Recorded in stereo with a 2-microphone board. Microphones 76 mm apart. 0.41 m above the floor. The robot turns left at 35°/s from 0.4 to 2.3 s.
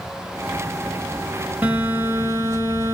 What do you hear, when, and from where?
1.6 s a phone buzzing: 20° right (ahead or behind), 1.2 m; by 3.0 s 40° right (ahead or behind), 1.2 m